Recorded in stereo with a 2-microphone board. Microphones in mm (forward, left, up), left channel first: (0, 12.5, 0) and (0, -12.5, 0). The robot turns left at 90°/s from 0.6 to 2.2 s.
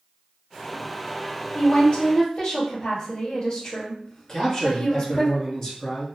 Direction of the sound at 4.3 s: 25° left (ahead or behind).